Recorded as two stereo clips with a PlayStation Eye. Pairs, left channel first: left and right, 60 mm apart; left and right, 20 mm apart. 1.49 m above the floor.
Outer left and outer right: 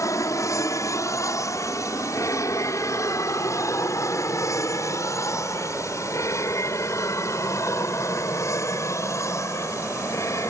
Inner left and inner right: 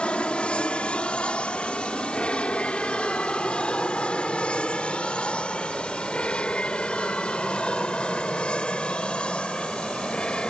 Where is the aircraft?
60° left (ahead or behind); by 10.5 s 55° left (ahead or behind).